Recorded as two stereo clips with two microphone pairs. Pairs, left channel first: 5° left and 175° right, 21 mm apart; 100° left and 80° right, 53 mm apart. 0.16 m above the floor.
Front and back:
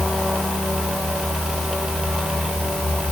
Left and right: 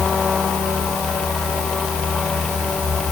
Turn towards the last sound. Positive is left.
No sound to turn to.